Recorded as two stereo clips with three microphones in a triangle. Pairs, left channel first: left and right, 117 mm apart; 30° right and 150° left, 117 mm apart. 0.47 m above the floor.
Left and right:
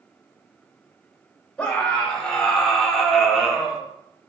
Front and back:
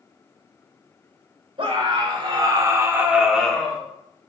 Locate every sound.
1.6 s a scream: 170° left, 2.0 m; by 3.8 s 10° right, 1.2 m